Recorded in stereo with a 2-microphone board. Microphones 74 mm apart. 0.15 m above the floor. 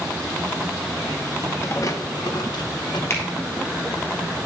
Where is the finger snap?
35° left (ahead or behind), 3 m.